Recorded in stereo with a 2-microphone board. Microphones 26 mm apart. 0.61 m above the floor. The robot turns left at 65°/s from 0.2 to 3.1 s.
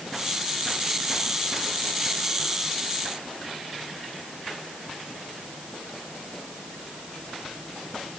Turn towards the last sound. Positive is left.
No sound to turn to.